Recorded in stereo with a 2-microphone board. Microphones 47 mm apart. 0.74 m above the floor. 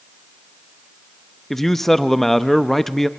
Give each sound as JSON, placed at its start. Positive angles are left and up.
{"t": 1.5, "sound": "a man speaking", "side_deg": 5, "distance_m": 0.6}